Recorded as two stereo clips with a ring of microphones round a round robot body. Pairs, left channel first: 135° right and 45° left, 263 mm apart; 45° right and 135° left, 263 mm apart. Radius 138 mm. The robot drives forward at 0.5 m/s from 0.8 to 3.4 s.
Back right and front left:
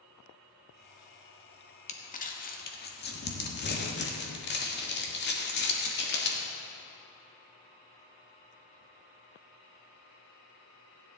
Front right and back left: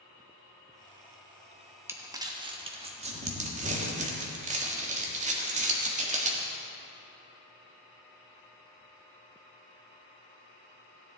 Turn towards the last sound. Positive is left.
turn(degrees=-170)